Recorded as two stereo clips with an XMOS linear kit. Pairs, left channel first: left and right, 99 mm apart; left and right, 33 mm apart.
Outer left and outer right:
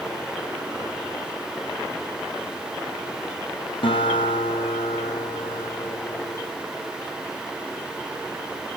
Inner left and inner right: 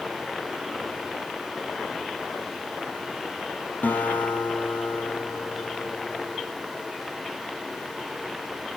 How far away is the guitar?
About 2.5 m.